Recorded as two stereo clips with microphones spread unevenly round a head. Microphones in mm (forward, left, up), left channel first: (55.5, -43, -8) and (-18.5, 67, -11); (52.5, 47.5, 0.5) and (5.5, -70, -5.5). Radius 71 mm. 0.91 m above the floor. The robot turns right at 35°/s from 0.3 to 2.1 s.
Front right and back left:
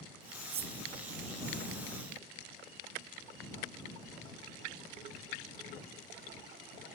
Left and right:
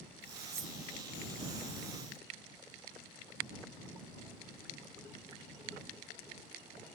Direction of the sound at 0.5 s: 175° left.